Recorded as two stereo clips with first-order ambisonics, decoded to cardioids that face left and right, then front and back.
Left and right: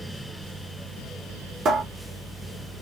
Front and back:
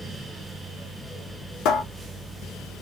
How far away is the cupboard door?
About 0.6 m.